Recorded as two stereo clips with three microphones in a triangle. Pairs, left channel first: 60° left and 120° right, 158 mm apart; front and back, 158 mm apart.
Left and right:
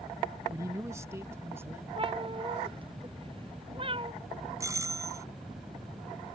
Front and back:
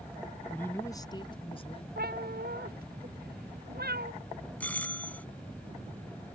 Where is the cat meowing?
175° right.